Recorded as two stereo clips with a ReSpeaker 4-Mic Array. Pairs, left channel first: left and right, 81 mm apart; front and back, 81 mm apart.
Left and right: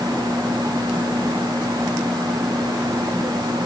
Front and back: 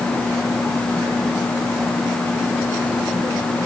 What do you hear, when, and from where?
Only background noise.